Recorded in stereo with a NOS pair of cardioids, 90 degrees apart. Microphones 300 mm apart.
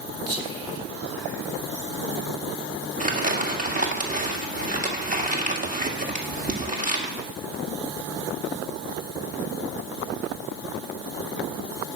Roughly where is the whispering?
Ahead right.